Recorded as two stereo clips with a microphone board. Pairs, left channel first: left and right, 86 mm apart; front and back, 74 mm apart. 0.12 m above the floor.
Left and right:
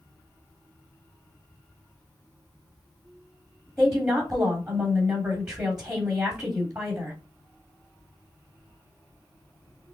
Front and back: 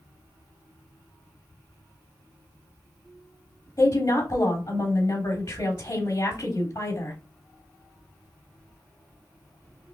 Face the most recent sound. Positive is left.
turn(degrees=-5)